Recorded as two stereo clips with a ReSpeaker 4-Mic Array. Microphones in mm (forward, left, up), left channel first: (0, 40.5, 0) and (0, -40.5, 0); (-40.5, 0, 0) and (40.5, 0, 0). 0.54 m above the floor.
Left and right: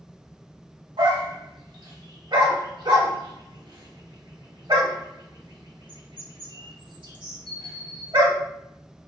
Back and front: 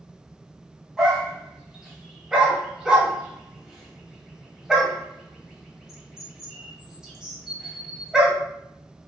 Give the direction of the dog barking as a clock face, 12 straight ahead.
3 o'clock.